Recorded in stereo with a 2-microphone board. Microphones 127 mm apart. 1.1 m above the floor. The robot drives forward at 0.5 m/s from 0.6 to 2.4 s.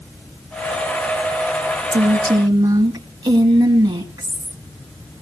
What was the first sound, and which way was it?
A woman speaking, 35° right (ahead or behind).